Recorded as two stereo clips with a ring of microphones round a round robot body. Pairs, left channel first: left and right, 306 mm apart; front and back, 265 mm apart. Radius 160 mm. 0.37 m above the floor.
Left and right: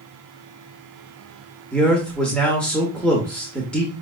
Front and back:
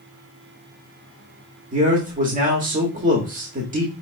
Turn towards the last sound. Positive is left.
turn(degrees=175)